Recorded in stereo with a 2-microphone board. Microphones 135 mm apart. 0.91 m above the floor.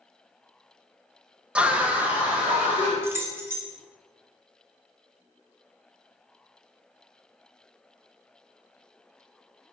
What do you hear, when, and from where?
1.6 s a scream: 10° right (ahead or behind), 0.5 m
3.0 s keys jangling: 20° right (ahead or behind), 0.6 m